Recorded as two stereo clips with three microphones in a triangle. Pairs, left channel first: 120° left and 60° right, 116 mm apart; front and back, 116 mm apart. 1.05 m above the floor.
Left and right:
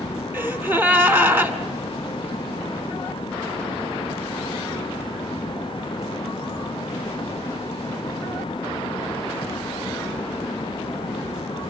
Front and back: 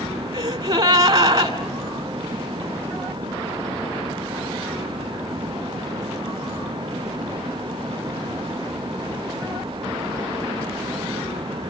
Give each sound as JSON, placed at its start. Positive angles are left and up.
{"t": 0.3, "sound": "a gasp", "azimuth_deg": -130, "distance_m": 2.0}